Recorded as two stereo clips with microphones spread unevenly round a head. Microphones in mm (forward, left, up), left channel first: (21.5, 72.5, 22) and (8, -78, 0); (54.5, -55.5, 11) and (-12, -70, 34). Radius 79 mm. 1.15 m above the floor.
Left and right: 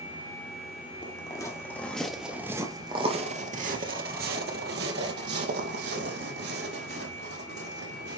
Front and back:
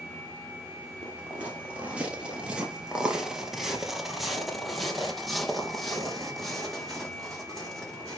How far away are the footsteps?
About 1.8 m.